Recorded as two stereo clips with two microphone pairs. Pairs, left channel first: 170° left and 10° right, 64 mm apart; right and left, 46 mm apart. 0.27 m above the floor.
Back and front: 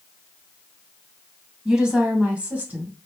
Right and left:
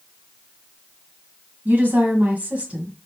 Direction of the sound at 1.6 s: 70° left.